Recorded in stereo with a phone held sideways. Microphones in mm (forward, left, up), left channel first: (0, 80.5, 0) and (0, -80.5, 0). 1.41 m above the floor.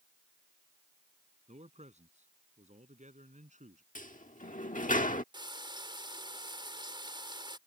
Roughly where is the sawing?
I don't hear sawing.